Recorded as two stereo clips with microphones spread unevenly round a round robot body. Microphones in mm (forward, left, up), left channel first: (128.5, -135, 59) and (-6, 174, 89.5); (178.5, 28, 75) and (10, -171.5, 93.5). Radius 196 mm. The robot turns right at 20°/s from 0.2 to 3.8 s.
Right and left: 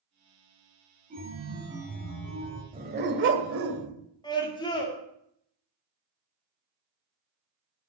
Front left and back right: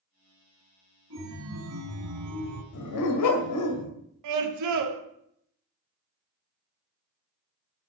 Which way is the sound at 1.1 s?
Straight behind.